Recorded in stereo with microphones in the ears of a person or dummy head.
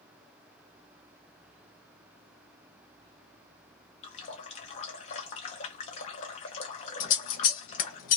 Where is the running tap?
25° left (ahead or behind), 0.6 m.